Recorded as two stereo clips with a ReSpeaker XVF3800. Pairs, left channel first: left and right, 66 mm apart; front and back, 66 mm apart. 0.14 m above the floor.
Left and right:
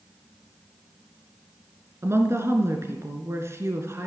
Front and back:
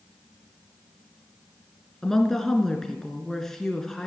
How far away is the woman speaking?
About 1.6 m.